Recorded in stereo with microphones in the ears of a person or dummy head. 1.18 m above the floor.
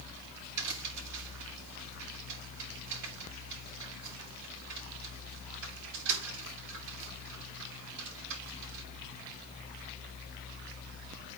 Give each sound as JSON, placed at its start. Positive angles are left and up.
{"t": 0.6, "sound": "a crack", "side_deg": -70, "distance_m": 7.0}